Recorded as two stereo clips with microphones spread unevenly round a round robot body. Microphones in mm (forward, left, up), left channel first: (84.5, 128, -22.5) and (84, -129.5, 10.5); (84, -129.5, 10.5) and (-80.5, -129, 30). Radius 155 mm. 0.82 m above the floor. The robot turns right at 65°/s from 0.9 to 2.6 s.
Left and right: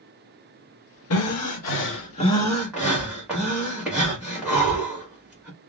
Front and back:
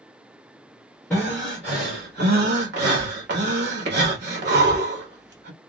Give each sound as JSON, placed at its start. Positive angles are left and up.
{"t": 1.1, "sound": "breathing", "azimuth_deg": 80, "distance_m": 1.2}